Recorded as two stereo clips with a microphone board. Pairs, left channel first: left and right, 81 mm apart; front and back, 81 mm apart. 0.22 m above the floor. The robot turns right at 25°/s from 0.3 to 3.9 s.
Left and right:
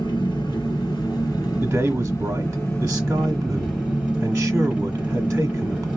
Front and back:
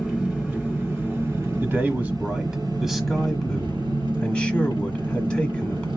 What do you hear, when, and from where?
0.0 s an engine running: 105° left, 3 m; by 6.0 s 165° right, 3 m
1.6 s a man speaking: 130° right, 1.1 m; by 5.9 s 75° right, 1.1 m